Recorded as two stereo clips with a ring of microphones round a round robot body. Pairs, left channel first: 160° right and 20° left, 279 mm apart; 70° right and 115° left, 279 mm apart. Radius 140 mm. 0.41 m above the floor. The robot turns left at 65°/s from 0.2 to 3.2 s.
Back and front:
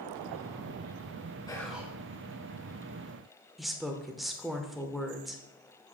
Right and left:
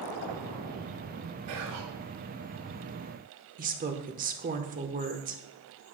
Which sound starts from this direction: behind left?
Whispering, at 1.5 s.